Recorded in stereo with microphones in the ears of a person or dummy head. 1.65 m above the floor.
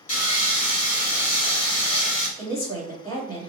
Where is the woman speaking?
20° left (ahead or behind), 1.5 m.